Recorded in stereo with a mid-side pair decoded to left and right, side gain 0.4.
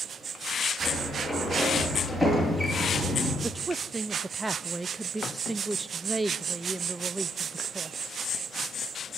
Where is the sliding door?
5° right, 9.5 m.